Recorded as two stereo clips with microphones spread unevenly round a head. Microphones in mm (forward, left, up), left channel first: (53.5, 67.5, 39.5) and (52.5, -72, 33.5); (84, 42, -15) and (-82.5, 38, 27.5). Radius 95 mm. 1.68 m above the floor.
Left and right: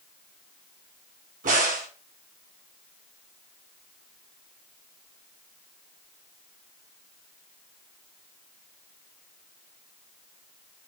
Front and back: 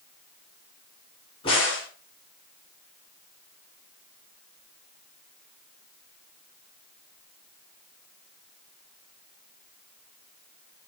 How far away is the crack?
About 2.5 m.